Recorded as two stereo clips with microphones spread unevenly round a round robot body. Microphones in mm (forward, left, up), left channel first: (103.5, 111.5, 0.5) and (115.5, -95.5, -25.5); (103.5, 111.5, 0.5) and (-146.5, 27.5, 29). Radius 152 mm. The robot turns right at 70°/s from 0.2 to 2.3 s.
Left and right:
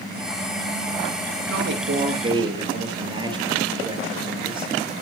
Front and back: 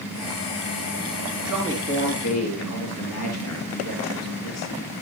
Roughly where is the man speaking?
Right.